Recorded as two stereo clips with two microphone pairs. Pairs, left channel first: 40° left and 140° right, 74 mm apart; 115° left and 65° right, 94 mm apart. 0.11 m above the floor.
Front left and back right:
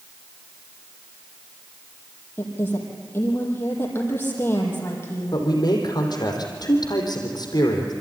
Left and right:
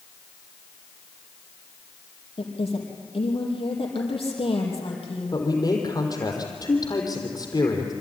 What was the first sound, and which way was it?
A woman speaking, 100° left.